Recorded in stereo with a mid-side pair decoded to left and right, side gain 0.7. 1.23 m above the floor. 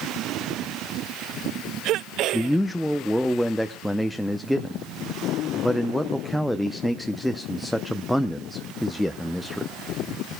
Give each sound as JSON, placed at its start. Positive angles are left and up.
{"t": 2.3, "sound": "a man speaking", "azimuth_deg": 0, "distance_m": 0.6}